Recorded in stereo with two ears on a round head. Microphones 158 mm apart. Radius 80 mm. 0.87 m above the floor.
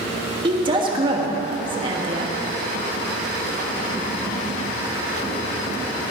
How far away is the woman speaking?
About 1.5 m.